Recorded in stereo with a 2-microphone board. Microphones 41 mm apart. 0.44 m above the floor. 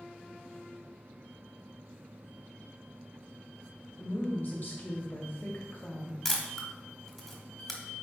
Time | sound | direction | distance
4.0 | a woman speaking | 60° left (ahead or behind) | 1.8 m
6.2 | a camera shutter | 10° left (ahead or behind) | 1.4 m